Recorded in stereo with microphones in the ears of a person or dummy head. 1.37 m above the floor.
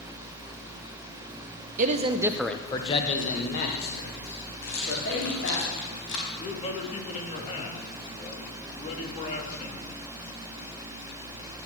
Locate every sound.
1.8 s a man speaking: 45° right (ahead or behind), 1.0 m; by 5.6 s 70° left (ahead or behind), 3.5 m
4.6 s a rattle: 70° left (ahead or behind), 4.5 m
6.4 s a man speaking: 35° left (ahead or behind), 3 m